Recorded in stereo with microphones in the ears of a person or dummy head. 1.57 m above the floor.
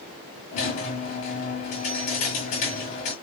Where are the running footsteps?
I don't hear running footsteps.